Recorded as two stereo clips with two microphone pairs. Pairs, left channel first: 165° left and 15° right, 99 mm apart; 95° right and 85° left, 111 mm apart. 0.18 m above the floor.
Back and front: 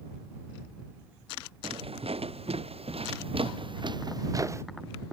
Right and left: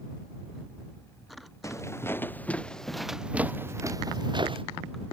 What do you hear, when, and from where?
1.6 s footsteps: 30° right; by 4.6 s 45° left